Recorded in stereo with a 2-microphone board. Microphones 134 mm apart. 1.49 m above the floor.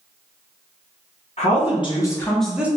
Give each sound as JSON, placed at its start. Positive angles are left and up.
{"t": 1.4, "sound": "a woman speaking", "side_deg": 55, "distance_m": 0.8}